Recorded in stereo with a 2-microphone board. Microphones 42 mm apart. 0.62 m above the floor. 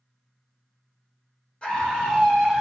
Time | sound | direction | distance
1.6 | a scream | 25° left (ahead or behind) | 1.3 m